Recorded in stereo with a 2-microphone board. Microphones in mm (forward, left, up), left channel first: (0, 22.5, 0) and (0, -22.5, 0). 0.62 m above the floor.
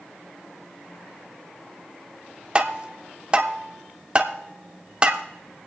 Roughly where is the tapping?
Right.